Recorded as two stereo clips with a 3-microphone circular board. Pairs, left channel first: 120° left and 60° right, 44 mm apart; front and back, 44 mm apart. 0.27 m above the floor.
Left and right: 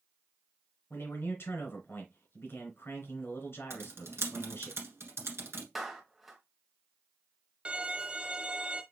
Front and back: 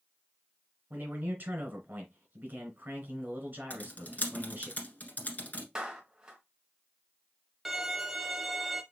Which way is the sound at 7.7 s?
95° right.